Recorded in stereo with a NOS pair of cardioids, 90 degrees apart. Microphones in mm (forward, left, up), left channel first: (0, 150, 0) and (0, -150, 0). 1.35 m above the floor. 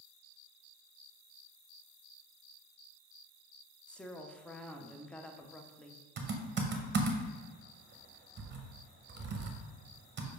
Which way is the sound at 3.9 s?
5° left.